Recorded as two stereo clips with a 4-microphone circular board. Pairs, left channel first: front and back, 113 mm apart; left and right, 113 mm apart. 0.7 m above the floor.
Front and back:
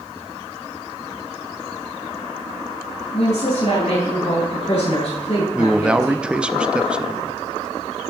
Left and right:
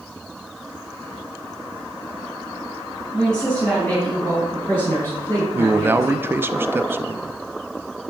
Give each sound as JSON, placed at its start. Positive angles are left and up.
{"t": 3.1, "sound": "a woman speaking", "azimuth_deg": 5, "distance_m": 4.5}
{"t": 5.5, "sound": "a man speaking", "azimuth_deg": -115, "distance_m": 0.5}